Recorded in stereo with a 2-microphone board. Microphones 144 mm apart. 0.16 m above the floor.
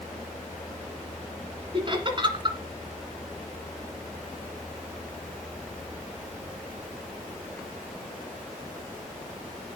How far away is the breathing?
No breathing in this recording.